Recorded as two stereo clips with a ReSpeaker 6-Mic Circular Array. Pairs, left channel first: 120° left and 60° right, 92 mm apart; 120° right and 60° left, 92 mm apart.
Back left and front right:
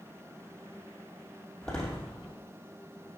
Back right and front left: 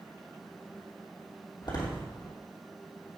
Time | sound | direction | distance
1.6 | a door slam | 160° right | 2.5 m